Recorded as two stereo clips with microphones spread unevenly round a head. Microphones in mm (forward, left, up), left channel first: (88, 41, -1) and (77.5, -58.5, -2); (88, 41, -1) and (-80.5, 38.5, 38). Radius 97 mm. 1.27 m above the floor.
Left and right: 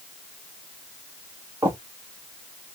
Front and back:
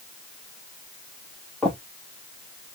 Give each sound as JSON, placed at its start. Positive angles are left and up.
{"t": 1.6, "sound": "footsteps", "azimuth_deg": -115, "distance_m": 1.3}